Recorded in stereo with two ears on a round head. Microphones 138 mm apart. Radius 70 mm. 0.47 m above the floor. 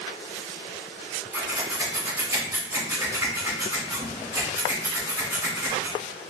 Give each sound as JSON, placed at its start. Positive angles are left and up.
{"t": 1.3, "sound": "scissors", "side_deg": -15, "distance_m": 1.5}